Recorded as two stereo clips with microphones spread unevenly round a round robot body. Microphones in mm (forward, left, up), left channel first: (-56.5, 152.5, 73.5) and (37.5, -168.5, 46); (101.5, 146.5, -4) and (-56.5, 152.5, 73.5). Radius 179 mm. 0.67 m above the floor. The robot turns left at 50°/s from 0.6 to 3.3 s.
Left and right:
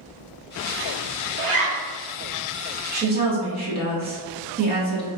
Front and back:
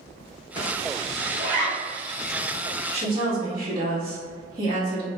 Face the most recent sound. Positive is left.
turn(degrees=-95)